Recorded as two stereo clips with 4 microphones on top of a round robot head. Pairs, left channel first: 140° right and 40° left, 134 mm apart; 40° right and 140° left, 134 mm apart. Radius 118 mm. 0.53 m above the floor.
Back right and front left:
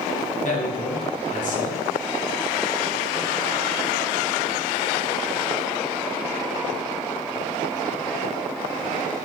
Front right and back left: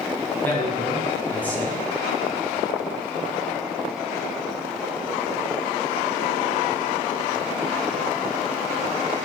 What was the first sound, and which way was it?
A man speaking, 120° right.